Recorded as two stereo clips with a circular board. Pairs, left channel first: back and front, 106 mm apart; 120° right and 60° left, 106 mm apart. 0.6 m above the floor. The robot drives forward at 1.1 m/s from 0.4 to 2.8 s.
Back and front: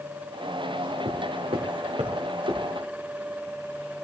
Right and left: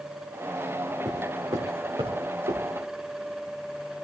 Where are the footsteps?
Straight ahead, 3.5 m; by 2.6 s 35° left, 4 m.